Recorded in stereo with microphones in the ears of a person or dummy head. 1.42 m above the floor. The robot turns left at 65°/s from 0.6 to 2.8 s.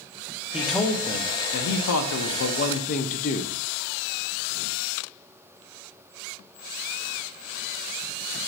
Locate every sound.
0.5 s a man speaking: straight behind, 0.5 m; by 3.5 s 40° left, 0.5 m